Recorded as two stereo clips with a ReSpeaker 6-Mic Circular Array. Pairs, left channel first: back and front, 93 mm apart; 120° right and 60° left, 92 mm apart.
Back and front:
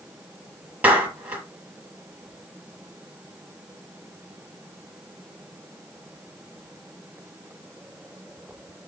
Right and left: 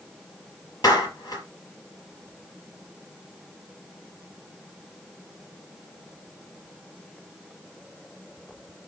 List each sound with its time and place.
0.8 s a clap: 70° right, 5 m